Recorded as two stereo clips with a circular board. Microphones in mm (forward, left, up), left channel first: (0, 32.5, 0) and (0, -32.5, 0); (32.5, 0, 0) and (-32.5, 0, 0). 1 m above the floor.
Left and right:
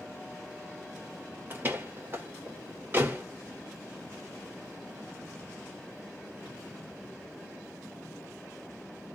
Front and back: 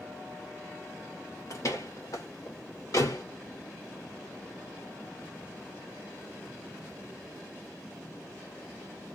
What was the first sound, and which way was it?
A door slam, 35° right.